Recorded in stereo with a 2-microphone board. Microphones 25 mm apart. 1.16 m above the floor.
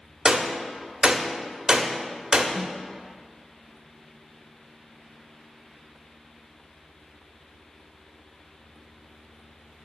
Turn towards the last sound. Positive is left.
turn(degrees=-20)  # may be behind; listen again after turning